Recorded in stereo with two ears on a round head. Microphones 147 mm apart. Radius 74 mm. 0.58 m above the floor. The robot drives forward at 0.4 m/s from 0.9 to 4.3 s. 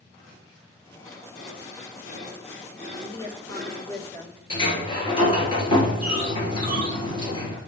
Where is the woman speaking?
20° left (ahead or behind), 1.8 m; by 4.4 s 15° left (ahead or behind), 2.5 m.